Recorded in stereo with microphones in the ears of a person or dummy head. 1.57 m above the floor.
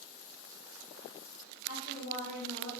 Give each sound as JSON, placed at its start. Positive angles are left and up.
{"t": 1.7, "sound": "a woman speaking", "side_deg": 85, "distance_m": 2.0}